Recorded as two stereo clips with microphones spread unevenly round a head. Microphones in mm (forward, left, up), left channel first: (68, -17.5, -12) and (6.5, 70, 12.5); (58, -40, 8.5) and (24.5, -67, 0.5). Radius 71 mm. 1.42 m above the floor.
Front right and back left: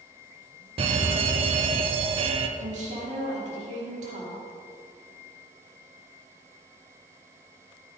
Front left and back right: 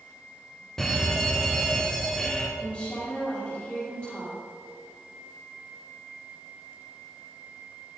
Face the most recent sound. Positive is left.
turn(degrees=120)